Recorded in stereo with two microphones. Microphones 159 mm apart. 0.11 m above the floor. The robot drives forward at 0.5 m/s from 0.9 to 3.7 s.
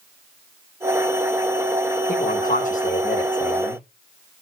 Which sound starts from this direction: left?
A man speaking, at 2.1 s.